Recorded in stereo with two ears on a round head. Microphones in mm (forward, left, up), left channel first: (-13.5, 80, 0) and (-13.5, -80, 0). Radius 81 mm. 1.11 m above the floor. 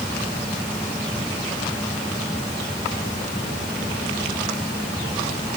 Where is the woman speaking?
No woman speaking in this recording.